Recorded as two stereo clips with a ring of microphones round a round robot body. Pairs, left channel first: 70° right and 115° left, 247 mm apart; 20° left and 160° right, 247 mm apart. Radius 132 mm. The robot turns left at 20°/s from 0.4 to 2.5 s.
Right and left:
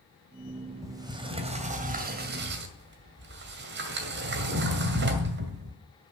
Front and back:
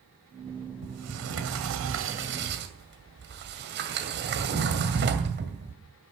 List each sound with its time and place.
0.8 s a sliding door: 170° right, 2 m; by 5.8 s 155° left, 2 m